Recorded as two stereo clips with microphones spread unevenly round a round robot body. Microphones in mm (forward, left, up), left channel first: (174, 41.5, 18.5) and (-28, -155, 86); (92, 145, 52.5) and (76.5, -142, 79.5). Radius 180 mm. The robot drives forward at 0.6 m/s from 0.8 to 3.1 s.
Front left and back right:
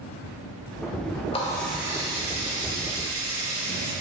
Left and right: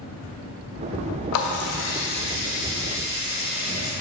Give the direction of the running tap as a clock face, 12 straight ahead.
8 o'clock.